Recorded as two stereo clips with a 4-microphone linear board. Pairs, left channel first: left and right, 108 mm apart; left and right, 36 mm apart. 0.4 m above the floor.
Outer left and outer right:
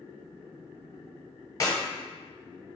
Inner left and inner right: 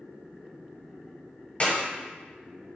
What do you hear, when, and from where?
1.6 s a clap: 35° left (ahead or behind), 1.2 m